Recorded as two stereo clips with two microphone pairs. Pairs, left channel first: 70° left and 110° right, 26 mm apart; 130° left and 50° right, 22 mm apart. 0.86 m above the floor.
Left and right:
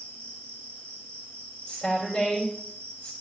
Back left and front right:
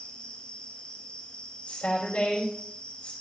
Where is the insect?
105° left, 5 m.